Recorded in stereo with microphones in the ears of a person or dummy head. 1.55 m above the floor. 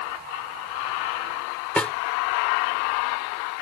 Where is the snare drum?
5° left (ahead or behind).